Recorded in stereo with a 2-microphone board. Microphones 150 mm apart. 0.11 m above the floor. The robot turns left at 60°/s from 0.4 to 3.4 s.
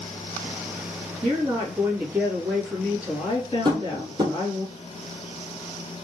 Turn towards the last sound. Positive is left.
turn(degrees=-30)  # may be behind; listen again after turning